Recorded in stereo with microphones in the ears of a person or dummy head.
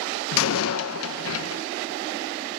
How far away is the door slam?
About 0.8 m.